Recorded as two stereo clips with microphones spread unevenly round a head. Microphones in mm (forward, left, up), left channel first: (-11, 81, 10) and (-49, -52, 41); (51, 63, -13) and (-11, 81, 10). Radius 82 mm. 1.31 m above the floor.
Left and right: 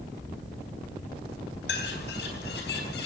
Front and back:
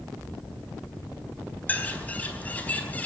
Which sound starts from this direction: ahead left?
A bird, at 1.7 s.